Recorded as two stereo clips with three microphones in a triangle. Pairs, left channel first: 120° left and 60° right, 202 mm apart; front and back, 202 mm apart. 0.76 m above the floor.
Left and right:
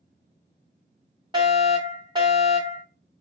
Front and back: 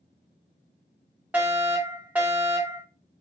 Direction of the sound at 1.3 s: 105° right.